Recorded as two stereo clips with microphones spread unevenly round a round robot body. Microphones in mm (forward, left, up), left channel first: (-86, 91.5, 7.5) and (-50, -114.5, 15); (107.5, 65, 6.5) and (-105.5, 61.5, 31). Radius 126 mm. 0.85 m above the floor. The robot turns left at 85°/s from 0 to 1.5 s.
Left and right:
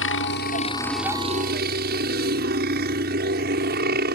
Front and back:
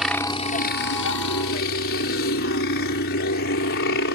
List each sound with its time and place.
0.0 s a helicopter: 95° left; by 4.2 s 35° right